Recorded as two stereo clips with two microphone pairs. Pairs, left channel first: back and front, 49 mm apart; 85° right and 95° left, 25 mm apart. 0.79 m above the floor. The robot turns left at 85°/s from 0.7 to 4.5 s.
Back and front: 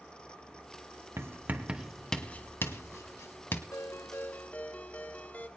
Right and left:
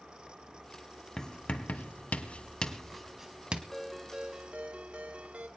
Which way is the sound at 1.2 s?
25° right.